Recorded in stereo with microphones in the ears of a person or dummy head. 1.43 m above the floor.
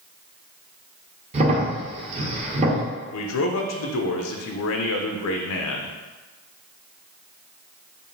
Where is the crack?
30° right (ahead or behind), 0.7 m.